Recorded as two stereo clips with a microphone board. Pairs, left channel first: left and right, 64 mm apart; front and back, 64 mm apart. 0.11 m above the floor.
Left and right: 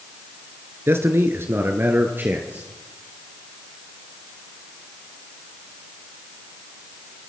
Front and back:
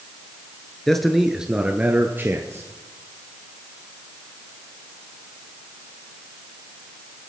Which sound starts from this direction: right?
A man speaking, at 0.9 s.